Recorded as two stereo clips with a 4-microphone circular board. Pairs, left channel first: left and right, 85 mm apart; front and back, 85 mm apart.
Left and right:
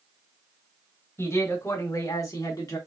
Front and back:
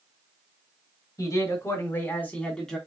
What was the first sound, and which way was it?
A man speaking, 35° left.